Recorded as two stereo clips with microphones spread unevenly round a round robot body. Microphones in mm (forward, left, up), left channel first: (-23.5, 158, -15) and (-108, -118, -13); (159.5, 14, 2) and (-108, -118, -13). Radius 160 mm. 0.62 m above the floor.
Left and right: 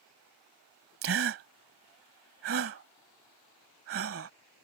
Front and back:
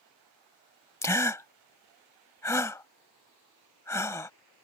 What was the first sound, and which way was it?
A gasp, 55° right.